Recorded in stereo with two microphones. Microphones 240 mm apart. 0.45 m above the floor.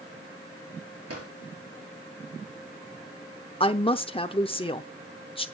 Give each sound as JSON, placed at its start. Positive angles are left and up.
{"t": 1.1, "sound": "a drawer", "side_deg": -80, "distance_m": 6.0}
{"t": 3.6, "sound": "a woman speaking", "side_deg": 25, "distance_m": 0.7}